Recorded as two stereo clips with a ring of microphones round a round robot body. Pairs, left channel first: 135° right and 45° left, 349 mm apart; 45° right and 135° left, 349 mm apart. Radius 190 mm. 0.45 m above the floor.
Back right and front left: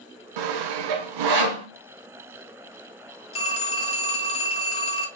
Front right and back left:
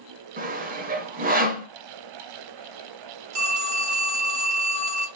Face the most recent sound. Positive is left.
turn(degrees=150)